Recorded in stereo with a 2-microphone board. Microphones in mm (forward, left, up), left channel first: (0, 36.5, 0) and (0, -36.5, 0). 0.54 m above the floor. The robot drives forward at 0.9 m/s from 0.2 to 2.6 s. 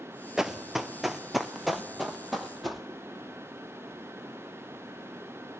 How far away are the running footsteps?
About 0.7 m.